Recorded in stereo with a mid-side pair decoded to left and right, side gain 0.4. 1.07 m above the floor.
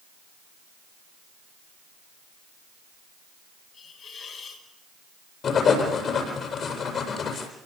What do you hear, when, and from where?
3.7 s a hiss: 65° left, 6 m
5.4 s writing: 60° left, 8 m